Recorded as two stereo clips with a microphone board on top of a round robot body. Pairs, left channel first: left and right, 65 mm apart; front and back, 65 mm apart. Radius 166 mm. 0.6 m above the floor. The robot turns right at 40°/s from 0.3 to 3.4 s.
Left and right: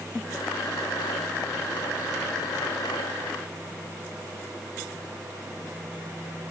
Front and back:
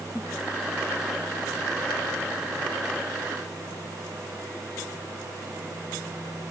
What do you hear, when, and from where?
Only background noise.